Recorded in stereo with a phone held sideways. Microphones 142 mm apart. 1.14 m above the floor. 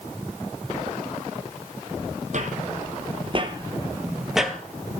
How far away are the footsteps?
About 2 m.